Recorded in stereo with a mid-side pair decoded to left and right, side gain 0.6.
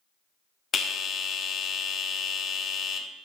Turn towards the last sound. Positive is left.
turn(degrees=40)